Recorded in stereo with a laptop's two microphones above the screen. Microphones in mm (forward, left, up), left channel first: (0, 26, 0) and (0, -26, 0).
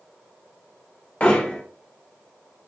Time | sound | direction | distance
1.2 | hammering | 30° left (ahead or behind) | 0.9 m